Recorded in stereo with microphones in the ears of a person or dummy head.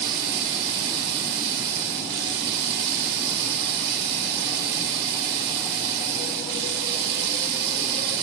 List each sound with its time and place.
0.0 s running water: 60° right (ahead or behind), 1.7 m